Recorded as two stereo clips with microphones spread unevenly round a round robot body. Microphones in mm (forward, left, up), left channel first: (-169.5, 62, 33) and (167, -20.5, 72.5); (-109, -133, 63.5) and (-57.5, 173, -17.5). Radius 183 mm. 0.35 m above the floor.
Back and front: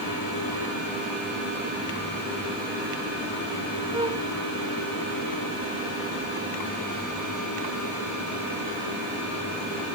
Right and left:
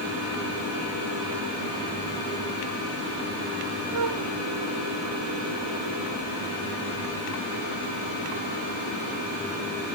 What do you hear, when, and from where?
3.9 s a flute: 60° left